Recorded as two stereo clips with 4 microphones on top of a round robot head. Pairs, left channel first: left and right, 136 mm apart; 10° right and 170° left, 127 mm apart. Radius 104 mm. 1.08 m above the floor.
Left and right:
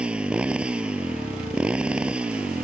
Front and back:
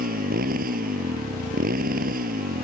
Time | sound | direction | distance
0.0 | a motorcycle | 170° right | ?